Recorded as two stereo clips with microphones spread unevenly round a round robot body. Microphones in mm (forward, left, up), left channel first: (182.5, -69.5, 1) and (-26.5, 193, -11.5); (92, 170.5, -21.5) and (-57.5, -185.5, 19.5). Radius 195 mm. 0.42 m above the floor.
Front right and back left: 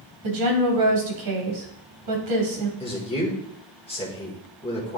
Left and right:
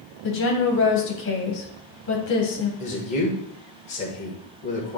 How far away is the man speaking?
About 1.6 m.